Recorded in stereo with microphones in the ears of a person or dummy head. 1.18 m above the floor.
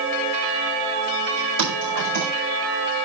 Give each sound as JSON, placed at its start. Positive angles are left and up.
{"t": 1.6, "sound": "typing on a keyboard", "side_deg": -70, "distance_m": 5.5}